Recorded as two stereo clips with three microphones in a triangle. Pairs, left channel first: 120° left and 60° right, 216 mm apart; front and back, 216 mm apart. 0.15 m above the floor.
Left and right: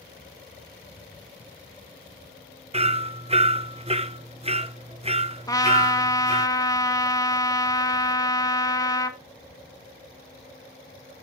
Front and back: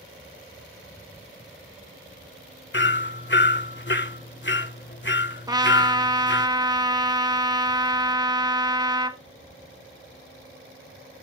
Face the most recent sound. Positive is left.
turn(degrees=155)